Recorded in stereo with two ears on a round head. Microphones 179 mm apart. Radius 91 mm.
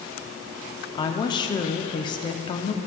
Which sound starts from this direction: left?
A woman speaking, at 1.0 s.